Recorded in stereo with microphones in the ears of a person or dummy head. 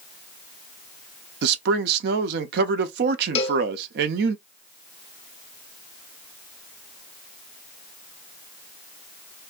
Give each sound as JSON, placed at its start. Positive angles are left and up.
{"t": 1.4, "sound": "a man speaking", "side_deg": -65, "distance_m": 0.6}
{"t": 3.4, "sound": "a cowbell", "side_deg": 35, "distance_m": 0.7}